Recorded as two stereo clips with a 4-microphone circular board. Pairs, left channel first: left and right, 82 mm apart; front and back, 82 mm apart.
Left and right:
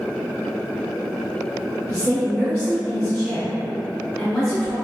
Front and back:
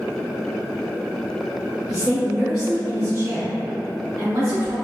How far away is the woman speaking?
About 1.1 m.